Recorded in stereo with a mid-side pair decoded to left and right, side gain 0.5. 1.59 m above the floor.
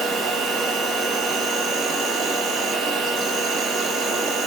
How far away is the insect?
About 1.2 m.